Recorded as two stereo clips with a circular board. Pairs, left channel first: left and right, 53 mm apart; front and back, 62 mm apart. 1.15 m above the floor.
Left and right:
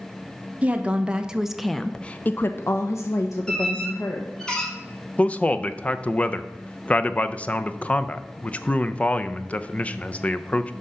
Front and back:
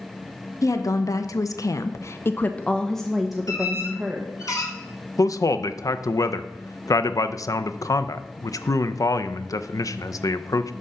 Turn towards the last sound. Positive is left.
turn(degrees=25)